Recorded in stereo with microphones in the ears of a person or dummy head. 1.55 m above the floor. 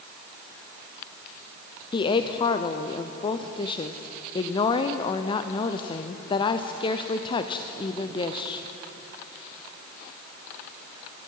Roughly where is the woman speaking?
Left.